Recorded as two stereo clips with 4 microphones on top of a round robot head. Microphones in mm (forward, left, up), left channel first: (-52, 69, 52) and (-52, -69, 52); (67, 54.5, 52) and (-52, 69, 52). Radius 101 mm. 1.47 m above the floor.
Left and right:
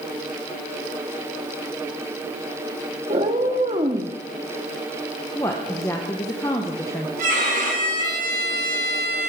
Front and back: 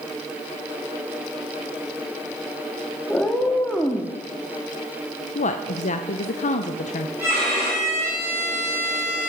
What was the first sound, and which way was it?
A cat meowing, 90° right.